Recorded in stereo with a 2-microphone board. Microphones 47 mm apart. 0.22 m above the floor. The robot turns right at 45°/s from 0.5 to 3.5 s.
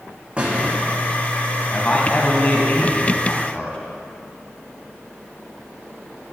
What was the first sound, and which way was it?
A squeak, 25° right (ahead or behind).